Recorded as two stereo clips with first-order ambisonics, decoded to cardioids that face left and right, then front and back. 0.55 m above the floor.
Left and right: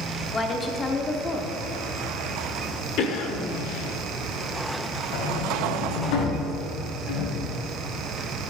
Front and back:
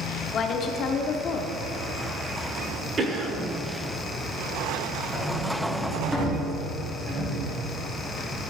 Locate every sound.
0.3 s a woman speaking: 25° left, 0.9 m
3.0 s a cough: 115° left, 1.3 m
5.1 s a sliding door: 100° left, 3 m